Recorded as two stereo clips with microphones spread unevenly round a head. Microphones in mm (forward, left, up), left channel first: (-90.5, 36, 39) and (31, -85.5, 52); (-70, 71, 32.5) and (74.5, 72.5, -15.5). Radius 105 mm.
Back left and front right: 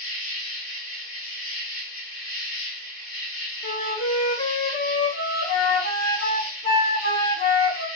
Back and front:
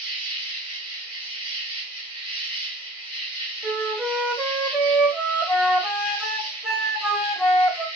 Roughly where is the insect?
Ahead left.